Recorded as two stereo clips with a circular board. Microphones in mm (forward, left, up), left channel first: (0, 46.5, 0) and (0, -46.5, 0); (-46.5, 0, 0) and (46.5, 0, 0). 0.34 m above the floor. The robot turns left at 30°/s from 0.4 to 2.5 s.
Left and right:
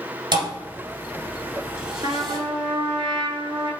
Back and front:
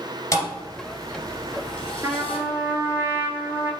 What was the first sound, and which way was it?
A thud, 125° right.